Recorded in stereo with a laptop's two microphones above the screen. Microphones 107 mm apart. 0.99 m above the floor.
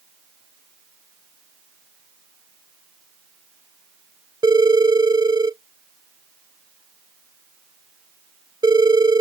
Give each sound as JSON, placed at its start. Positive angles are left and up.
{"t": 4.4, "sound": "a phone ringing", "side_deg": -40}